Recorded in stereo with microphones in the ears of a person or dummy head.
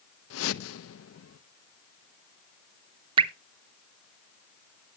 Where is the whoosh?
80° left, 0.7 m.